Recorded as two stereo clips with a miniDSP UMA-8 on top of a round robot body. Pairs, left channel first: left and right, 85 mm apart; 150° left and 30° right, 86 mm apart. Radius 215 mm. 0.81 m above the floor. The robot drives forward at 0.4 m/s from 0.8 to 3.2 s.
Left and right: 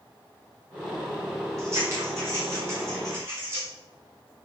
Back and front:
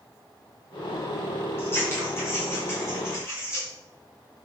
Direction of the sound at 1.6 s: 145° right.